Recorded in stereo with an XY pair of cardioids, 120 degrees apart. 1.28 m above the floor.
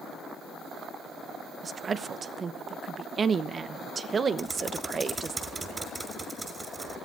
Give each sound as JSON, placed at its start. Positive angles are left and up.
{"t": 1.6, "sound": "a woman speaking", "azimuth_deg": -35, "distance_m": 1.0}
{"t": 4.4, "sound": "typing on a keyboard", "azimuth_deg": -20, "distance_m": 5.5}